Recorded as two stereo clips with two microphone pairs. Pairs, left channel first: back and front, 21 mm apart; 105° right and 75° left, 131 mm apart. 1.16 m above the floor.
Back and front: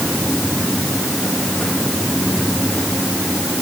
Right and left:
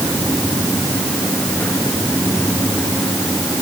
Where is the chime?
I don't hear a chime.